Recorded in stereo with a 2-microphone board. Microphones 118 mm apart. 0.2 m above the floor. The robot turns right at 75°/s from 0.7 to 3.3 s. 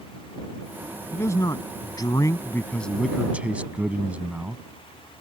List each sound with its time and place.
1.1 s a man speaking: 35° left; by 4.6 s 160° right